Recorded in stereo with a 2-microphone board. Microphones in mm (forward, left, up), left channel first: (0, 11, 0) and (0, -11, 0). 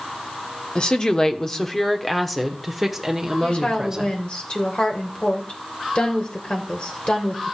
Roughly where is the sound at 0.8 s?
Left.